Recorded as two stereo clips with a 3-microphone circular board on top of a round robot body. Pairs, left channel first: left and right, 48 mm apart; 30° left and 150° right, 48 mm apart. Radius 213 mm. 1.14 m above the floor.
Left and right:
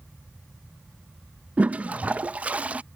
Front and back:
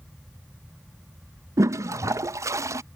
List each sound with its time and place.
1.6 s a toilet flushing: 150° right